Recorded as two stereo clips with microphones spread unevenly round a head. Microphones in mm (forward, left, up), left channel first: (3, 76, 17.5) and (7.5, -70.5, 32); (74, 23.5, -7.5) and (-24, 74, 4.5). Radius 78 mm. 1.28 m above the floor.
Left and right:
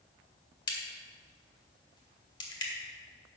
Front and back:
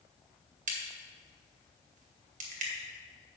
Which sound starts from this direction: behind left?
A crack, at 0.7 s.